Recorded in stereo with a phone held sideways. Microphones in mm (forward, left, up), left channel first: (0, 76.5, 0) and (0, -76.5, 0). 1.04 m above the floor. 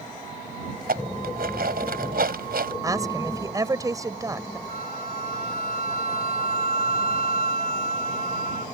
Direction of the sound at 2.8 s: 20° right (ahead or behind).